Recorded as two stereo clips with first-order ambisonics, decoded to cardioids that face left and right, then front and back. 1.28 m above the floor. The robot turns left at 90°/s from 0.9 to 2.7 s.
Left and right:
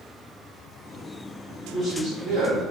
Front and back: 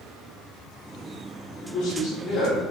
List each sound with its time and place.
1.6 s a man speaking: 20° left, 0.9 m; by 2.7 s 75° right, 0.9 m